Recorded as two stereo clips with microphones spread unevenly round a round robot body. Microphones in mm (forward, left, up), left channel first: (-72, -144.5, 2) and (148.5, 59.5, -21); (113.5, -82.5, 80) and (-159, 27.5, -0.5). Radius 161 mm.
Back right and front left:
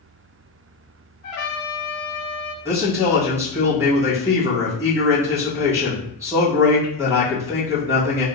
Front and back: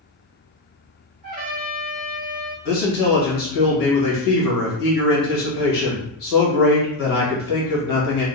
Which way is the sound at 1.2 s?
130° right.